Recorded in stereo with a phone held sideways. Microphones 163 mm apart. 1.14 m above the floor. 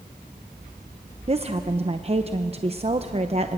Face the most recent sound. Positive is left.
turn(degrees=-35)  # may be behind; listen again after turning